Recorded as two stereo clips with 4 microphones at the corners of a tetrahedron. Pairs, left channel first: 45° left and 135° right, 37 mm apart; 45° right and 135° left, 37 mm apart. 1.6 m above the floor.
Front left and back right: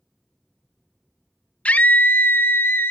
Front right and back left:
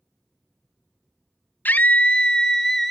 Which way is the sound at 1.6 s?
10° right.